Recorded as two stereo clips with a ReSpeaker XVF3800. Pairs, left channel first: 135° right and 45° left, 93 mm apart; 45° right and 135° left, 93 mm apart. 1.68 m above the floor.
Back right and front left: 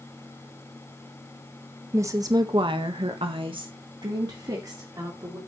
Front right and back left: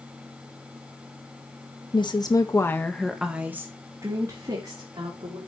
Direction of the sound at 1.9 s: 15° right.